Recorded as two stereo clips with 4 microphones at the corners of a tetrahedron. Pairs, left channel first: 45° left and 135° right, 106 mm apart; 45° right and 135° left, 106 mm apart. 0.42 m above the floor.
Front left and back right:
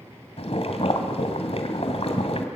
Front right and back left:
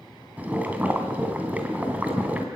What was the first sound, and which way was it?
Boiling, 60° left.